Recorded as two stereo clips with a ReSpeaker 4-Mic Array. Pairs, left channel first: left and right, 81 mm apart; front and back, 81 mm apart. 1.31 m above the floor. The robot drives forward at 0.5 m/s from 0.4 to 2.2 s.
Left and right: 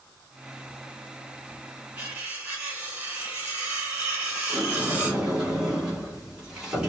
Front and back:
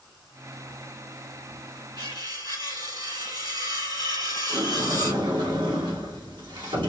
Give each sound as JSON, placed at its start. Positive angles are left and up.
{"t": 2.0, "sound": "cutlery clinking", "azimuth_deg": -160, "distance_m": 2.5}
{"t": 4.5, "sound": "a sliding door", "azimuth_deg": -165, "distance_m": 2.0}